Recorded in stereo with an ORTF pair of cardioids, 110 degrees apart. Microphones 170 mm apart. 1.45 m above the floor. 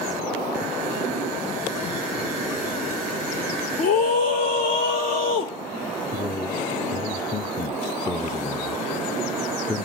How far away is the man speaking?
About 0.6 m.